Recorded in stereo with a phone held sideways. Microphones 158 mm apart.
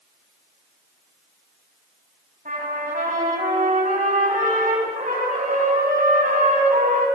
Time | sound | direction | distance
2.5 | a trumpet | 60° right (ahead or behind) | 6 m